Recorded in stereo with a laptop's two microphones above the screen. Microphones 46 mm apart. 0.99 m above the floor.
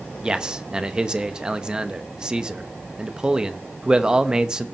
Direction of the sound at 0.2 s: 15° right (ahead or behind).